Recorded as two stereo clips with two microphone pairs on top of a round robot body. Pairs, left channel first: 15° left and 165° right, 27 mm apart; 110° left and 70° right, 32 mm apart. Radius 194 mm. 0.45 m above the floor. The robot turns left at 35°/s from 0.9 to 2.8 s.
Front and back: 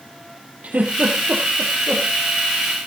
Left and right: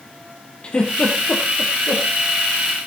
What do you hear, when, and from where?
0.6 s a giggle: 165° left, 3 m; by 2.0 s 125° left, 3 m